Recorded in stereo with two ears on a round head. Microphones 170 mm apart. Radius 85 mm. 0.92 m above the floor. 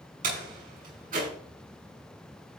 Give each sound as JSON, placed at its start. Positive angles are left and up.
{"t": 0.2, "sound": "a door slam", "side_deg": -45, "distance_m": 7.0}